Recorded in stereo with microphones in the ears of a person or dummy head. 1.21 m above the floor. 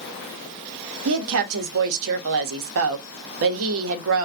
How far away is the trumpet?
I don't hear a trumpet.